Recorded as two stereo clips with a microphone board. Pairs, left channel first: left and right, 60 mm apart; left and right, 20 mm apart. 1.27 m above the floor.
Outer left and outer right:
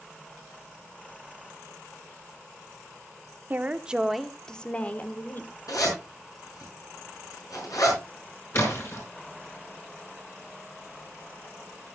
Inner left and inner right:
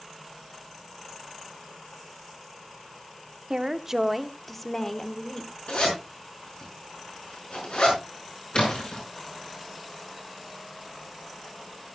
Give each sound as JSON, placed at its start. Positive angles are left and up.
{"t": 3.5, "sound": "a woman speaking", "side_deg": -30, "distance_m": 0.9}
{"t": 5.7, "sound": "a zipper", "side_deg": 70, "distance_m": 6.0}
{"t": 8.5, "sound": "a splash", "side_deg": 50, "distance_m": 5.0}